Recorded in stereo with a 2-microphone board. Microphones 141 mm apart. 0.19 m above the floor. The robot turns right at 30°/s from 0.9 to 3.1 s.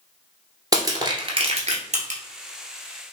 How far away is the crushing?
About 1.3 m.